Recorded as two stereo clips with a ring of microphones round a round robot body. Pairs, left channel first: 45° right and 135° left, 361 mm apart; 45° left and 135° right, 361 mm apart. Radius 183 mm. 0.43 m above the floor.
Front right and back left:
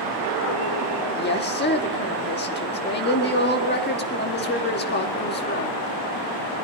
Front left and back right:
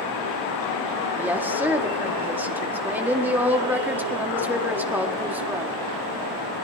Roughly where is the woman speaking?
Ahead right.